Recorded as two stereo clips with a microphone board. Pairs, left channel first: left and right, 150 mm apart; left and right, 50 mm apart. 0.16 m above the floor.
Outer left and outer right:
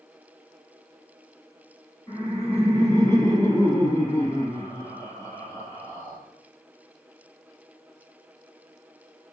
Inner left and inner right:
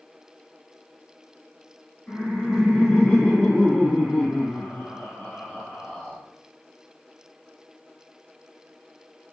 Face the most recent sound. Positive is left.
turn(degrees=20)  # may be behind; listen again after turning